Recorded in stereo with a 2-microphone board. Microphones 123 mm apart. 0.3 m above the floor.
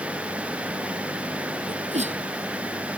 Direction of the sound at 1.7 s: 65° right (ahead or behind).